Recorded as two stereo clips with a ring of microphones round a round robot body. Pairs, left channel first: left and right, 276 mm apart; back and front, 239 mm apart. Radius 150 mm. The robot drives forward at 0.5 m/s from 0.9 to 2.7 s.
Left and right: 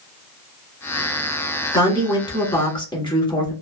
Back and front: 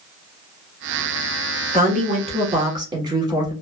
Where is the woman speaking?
20° left, 1.5 m; by 3.5 s 45° left, 1.3 m.